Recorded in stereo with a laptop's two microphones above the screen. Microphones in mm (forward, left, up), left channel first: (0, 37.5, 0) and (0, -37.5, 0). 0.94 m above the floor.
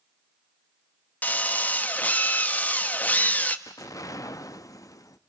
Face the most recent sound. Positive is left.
turn(degrees=50)  # may be behind; listen again after turning